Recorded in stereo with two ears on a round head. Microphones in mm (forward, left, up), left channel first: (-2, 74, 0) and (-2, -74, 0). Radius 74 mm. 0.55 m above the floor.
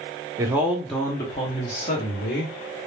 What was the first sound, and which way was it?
A man speaking, 20° right (ahead or behind).